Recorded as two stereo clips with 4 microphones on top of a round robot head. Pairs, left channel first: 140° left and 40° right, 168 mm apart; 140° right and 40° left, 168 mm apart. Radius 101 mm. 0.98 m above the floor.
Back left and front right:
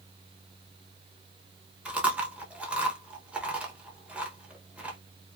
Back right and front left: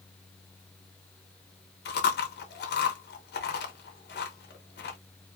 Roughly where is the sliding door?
No sliding door in this recording.